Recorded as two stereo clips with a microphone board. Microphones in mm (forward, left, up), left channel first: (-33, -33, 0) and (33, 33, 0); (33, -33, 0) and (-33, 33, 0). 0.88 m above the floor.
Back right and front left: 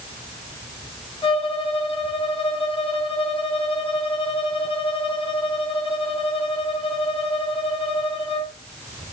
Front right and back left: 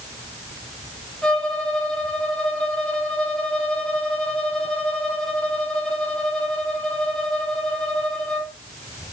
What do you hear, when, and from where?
1.2 s a violin: 125° right, 3.5 m